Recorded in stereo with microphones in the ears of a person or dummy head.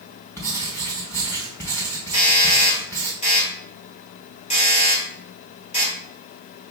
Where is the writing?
15° left (ahead or behind), 1.9 m.